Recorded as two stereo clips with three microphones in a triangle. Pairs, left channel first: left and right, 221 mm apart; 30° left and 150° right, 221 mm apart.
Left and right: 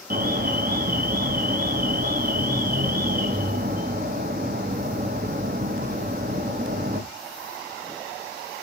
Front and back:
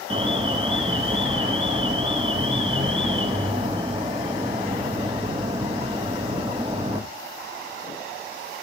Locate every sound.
0.1 s an alarm: 95° right, 0.7 m